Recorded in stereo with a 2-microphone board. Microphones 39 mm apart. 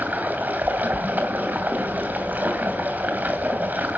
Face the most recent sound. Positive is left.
turn(degrees=-45)  # may be behind; listen again after turning